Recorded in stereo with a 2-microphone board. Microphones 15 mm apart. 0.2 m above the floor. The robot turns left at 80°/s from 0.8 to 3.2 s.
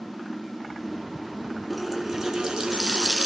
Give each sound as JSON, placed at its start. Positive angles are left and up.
{"t": 1.7, "sound": "a running tap", "azimuth_deg": 5, "distance_m": 1.5}